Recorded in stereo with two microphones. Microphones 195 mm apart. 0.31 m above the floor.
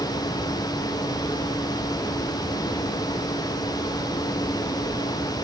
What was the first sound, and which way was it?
Only background noise.